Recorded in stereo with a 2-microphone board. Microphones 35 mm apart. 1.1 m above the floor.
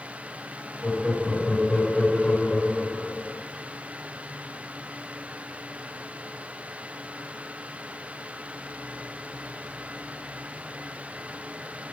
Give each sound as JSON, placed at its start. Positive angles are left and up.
{"t": 0.8, "sound": "laughter", "side_deg": 30, "distance_m": 4.0}